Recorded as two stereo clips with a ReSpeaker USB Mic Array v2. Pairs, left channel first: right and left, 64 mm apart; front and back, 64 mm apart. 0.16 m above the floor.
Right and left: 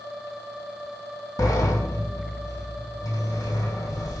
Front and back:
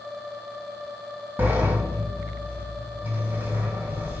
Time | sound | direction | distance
1.4 | a sliding door | 120° right | 2.5 m